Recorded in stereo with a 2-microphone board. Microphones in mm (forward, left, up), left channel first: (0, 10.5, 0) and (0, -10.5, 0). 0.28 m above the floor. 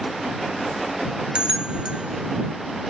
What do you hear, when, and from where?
1.4 s a bell: 50° right (ahead or behind)